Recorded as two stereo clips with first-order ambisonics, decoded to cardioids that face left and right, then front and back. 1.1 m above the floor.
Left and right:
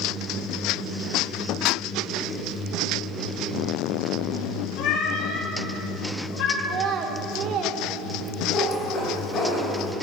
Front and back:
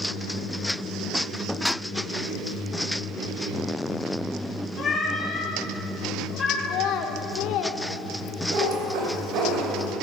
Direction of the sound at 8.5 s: 160° left.